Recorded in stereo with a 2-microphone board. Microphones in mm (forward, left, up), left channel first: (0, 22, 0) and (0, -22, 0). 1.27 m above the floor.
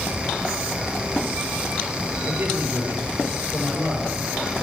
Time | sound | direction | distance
2.2 | a man speaking | 55° right (ahead or behind) | 6 m